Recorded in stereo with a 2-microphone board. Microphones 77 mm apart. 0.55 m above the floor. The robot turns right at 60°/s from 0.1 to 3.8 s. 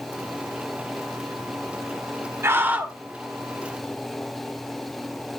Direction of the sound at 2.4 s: 55° right.